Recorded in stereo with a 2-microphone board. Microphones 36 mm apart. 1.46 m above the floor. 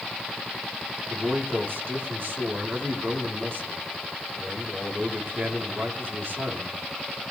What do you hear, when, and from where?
1.1 s a man speaking: 80° right, 4 m